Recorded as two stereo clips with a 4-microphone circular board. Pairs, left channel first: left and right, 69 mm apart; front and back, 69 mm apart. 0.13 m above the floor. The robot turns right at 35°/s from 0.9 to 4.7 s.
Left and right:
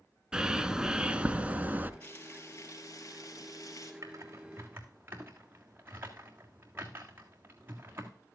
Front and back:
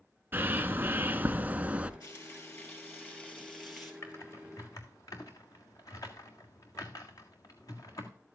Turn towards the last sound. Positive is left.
turn(degrees=-30)